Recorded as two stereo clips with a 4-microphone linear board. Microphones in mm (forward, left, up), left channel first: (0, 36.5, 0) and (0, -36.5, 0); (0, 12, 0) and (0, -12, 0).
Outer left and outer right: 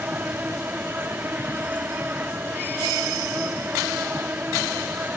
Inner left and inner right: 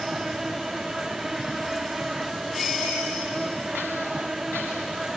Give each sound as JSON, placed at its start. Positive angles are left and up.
{"t": 0.0, "sound": "an insect", "side_deg": -25}